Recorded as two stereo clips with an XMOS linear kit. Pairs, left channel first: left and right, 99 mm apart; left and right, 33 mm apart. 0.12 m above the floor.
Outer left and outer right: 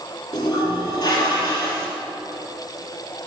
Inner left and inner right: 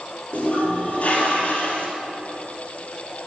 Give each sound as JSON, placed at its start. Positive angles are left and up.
{"t": 0.3, "sound": "a toilet flushing", "side_deg": 45, "distance_m": 2.5}